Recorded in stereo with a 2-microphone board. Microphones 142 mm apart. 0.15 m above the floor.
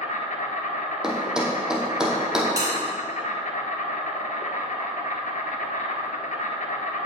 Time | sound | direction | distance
0.0 | an insect | 65° left (ahead or behind) | 1.0 m
1.0 | a thud | 5° right (ahead or behind) | 1.3 m
2.6 | a bell | 25° right (ahead or behind) | 3 m